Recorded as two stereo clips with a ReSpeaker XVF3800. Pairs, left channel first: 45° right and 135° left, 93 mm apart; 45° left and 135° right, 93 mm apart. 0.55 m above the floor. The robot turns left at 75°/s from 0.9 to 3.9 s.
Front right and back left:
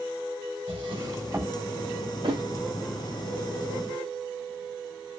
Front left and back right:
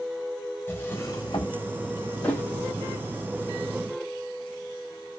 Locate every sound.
0.7 s a drawer: 105° left, 1.0 m; by 1.6 s 55° left, 1.0 m
2.2 s a thud: 125° left, 1.3 m; by 2.4 s 110° left, 1.3 m